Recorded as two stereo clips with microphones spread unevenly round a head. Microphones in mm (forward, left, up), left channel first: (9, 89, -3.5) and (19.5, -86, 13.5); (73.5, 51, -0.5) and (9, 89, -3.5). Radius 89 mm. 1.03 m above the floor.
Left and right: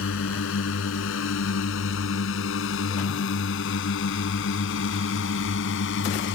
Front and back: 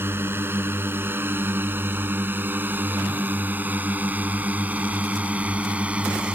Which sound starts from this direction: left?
A drone, at 0.0 s.